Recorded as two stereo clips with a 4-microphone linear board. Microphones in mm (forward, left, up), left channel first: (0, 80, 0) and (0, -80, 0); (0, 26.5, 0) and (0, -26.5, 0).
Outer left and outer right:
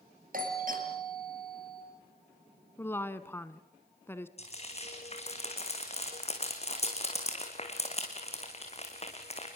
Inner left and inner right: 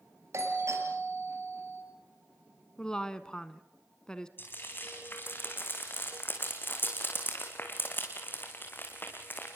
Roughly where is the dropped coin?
I don't hear a dropped coin.